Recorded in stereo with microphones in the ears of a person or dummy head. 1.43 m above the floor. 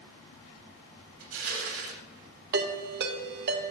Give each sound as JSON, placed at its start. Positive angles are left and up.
{"t": 1.2, "sound": "crushing", "side_deg": -80, "distance_m": 3.5}
{"t": 2.5, "sound": "a ringtone", "side_deg": -55, "distance_m": 1.7}